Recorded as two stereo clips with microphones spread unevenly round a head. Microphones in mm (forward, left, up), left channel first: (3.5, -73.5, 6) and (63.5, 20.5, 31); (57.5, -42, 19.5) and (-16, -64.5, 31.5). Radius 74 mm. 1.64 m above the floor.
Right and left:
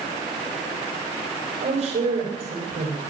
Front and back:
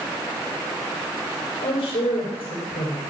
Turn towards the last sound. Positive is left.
turn(degrees=40)